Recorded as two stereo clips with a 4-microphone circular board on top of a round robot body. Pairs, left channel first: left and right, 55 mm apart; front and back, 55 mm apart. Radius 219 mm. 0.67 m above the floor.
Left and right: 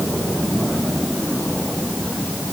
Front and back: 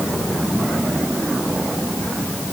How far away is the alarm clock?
No alarm clock in this recording.